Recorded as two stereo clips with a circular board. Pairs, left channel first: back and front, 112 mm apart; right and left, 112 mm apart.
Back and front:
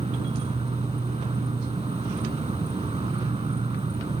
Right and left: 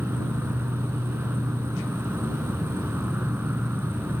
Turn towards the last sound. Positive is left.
turn(degrees=15)